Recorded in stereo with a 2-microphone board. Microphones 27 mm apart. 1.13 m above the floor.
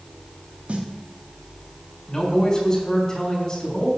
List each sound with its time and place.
0.7 s a snare drum: 50° right (ahead or behind), 1.5 m
2.1 s a man speaking: 30° left (ahead or behind), 3.5 m